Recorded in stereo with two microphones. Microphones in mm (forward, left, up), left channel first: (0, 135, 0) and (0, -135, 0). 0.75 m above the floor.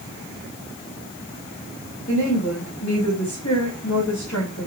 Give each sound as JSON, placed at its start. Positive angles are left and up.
{"t": 2.1, "sound": "a woman speaking", "side_deg": 60, "distance_m": 3.5}